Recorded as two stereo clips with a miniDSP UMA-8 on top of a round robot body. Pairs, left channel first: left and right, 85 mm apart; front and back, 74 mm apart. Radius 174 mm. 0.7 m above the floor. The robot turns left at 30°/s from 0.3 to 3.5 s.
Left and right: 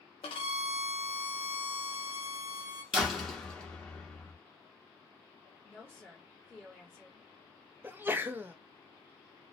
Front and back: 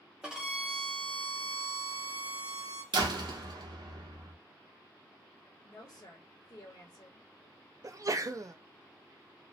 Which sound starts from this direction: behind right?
A sneeze, at 7.8 s.